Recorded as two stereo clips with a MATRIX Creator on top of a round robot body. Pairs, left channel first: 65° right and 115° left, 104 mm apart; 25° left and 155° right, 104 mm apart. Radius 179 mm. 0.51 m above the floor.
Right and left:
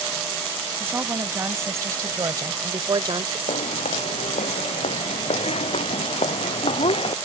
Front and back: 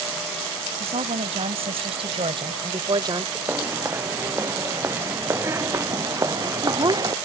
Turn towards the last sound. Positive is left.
turn(degrees=-105)